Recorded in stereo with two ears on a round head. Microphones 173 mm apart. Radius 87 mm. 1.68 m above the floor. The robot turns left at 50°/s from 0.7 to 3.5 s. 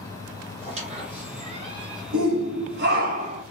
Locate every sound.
0.6 s a squeak: 70° right, 2.0 m; by 2.0 s 135° right, 2.0 m
2.1 s a shout: 85° right, 1.3 m; by 3.4 s 150° right, 1.3 m